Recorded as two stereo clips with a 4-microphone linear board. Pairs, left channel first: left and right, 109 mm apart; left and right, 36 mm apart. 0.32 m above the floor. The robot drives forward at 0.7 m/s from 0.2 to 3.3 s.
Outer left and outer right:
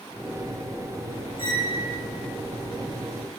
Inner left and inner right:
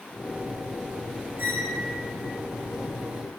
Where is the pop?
I don't hear a pop.